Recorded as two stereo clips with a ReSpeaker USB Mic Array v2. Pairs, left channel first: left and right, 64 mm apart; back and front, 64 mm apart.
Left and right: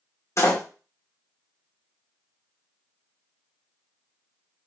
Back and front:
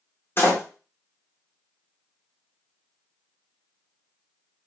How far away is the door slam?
About 1.5 m.